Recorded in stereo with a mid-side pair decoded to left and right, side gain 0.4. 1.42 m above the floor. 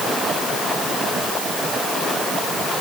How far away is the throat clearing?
No throat clearing in this recording.